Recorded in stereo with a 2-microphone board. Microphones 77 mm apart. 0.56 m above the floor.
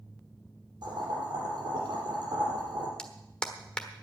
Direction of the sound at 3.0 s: 10° left (ahead or behind).